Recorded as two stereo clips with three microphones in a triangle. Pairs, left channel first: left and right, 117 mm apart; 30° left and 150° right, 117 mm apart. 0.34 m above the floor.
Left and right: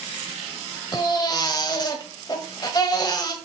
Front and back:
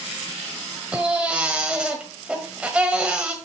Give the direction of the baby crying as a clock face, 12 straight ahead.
8 o'clock.